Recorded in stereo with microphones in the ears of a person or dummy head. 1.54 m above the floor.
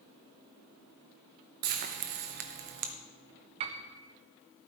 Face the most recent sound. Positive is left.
turn(degrees=-35)  # may be behind; listen again after turning